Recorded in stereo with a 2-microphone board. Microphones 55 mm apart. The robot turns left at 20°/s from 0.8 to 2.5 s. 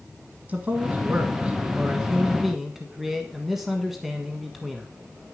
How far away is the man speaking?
About 1.3 m.